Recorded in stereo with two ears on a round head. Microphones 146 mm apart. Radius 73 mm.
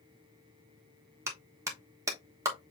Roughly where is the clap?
Centre.